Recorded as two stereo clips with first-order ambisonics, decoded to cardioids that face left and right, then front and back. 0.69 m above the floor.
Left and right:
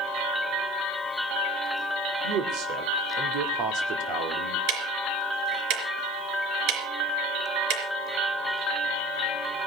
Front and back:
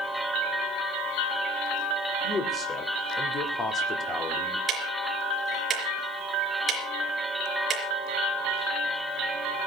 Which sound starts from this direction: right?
Ticking, at 4.7 s.